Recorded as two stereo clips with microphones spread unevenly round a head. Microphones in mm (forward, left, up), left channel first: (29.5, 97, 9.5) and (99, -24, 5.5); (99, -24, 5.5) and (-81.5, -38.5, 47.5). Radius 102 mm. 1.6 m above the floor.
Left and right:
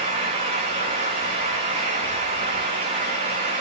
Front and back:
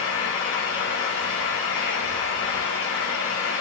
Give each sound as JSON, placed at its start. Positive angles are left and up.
{"t": 0.0, "sound": "a fan", "azimuth_deg": -15, "distance_m": 7.0}